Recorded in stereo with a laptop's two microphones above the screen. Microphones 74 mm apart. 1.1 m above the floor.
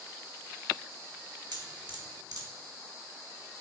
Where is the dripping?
70° right (ahead or behind), 1.6 m.